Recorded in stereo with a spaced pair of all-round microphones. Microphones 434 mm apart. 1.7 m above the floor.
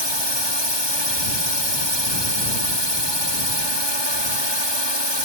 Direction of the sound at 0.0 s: 70° right (ahead or behind).